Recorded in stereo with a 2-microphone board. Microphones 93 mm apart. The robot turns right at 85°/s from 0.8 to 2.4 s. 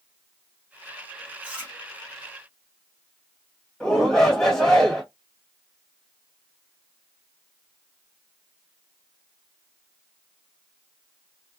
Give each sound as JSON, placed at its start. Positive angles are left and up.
{"t": 1.4, "sound": "chewing", "side_deg": -10, "distance_m": 1.3}
{"t": 3.8, "sound": "a shout", "side_deg": 5, "distance_m": 1.4}